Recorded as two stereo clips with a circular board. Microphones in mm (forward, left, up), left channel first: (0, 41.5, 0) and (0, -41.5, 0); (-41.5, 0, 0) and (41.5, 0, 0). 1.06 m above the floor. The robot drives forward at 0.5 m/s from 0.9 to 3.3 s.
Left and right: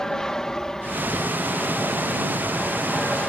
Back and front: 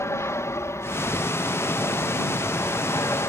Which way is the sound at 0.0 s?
170° left.